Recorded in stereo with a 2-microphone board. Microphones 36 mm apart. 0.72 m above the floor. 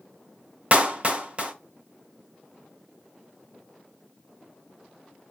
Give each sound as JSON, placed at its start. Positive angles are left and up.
{"t": 0.7, "sound": "a clap", "side_deg": -30, "distance_m": 0.6}